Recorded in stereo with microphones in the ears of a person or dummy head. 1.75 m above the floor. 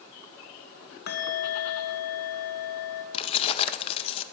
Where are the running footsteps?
No running footsteps in this recording.